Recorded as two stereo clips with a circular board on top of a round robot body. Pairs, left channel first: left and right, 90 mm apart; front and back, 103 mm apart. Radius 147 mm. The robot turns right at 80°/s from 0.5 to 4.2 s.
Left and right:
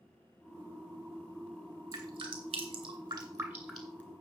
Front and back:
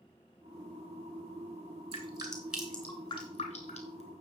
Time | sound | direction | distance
1.9 | dripping | 145° right | 2.5 m